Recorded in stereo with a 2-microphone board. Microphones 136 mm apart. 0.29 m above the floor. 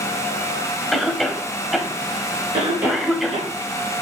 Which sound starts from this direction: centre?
A cough, at 0.9 s.